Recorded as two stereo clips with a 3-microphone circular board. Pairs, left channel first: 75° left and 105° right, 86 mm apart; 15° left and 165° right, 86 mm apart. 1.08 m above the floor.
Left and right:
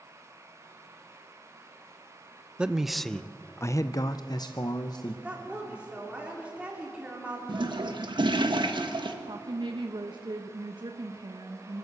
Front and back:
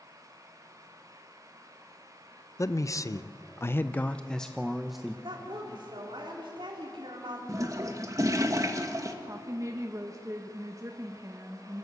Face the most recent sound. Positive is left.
turn(degrees=-120)